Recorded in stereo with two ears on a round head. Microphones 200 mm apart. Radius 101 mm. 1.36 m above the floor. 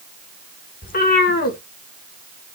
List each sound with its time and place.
0.8 s a cat meowing: 40° left (ahead or behind), 1.3 m